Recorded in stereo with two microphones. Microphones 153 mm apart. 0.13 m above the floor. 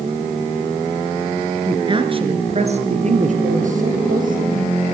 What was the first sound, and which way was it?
A woman speaking, 30° right (ahead or behind).